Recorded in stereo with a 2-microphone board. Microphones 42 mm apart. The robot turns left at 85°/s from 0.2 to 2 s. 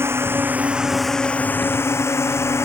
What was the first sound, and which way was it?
A drone, 110° right.